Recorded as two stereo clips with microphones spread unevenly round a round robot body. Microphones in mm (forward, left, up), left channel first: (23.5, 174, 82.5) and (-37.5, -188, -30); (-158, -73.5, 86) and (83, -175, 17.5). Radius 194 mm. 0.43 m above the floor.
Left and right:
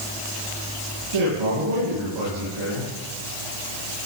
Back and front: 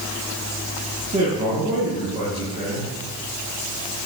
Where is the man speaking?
95° right, 7.5 m.